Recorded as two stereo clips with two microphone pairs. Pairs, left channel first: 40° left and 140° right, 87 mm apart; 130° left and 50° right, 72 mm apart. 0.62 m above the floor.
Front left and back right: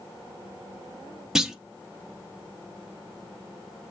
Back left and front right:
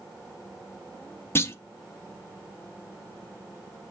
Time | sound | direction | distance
1.4 | a clunk | 140° left | 0.6 m